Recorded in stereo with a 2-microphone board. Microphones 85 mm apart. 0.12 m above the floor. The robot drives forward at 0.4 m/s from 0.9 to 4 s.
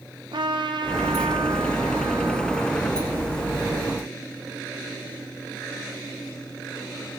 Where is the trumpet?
70° right (ahead or behind), 2.5 m; by 3.8 s 75° right (ahead or behind), 2.5 m.